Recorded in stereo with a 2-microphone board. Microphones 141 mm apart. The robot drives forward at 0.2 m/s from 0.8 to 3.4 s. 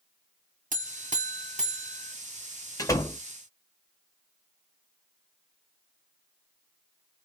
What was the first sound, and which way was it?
A buzzer, 65° right (ahead or behind).